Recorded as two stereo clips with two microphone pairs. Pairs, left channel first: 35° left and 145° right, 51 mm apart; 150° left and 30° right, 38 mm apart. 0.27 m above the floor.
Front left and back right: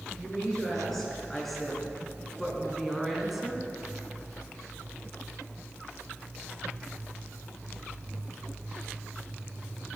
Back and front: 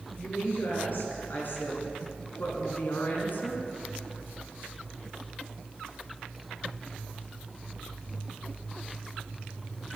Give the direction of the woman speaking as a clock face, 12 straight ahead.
8 o'clock.